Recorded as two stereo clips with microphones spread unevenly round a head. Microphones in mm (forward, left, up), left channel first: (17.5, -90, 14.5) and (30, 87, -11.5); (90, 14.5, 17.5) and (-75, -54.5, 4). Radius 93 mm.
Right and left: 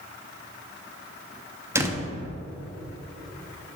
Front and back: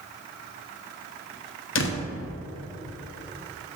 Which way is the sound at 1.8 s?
10° left.